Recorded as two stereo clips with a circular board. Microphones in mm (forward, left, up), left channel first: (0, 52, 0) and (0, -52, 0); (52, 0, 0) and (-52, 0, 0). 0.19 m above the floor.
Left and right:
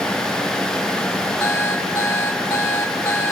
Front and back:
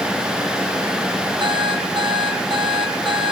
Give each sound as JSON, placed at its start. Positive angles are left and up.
{"t": 1.4, "sound": "an alarm clock", "azimuth_deg": 155, "distance_m": 2.5}